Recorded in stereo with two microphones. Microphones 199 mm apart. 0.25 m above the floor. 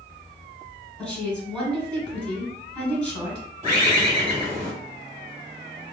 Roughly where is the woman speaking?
Centre.